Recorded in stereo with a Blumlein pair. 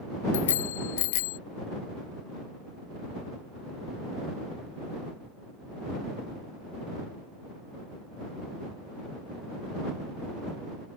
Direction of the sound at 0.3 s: 60° left.